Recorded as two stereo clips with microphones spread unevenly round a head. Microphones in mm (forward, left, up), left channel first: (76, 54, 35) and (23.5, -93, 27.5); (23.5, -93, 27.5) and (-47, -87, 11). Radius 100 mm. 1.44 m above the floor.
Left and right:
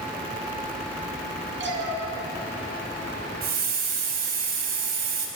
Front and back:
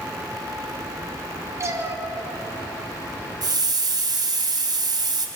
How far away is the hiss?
About 3.5 m.